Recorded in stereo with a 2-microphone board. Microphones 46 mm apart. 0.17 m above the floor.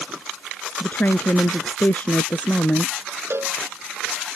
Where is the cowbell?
60° right (ahead or behind).